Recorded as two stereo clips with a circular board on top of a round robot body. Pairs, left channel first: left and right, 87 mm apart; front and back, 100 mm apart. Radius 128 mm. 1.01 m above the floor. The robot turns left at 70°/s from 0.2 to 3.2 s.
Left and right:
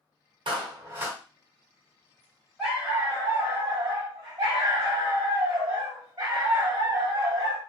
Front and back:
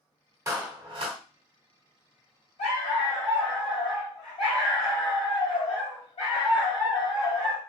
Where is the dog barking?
Straight ahead, 1.9 m; by 7.6 s 40° right, 1.9 m.